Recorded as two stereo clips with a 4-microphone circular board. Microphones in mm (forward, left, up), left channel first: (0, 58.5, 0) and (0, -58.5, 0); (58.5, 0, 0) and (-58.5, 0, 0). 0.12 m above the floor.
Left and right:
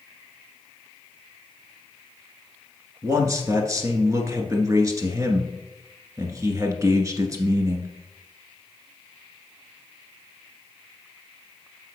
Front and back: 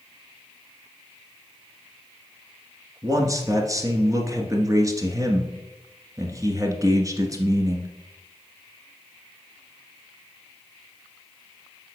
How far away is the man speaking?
About 1.6 m.